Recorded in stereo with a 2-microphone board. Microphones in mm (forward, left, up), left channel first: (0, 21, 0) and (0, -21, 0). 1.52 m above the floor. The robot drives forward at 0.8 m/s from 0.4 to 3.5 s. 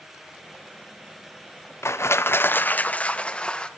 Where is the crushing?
80° left, 0.6 m; by 3.7 s 25° left (ahead or behind), 1.4 m.